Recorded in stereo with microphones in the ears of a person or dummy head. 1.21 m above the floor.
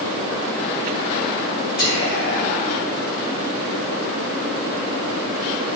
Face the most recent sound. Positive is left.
turn(degrees=55)  # may be behind; listen again after turning